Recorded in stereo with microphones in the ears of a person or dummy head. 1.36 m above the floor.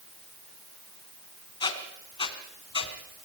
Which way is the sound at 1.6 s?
20° left (ahead or behind).